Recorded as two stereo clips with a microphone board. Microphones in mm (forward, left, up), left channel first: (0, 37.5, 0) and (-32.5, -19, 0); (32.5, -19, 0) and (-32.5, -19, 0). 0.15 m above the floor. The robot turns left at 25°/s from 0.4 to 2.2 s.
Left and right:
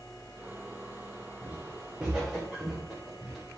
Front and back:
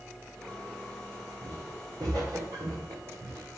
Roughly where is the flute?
I don't hear a flute.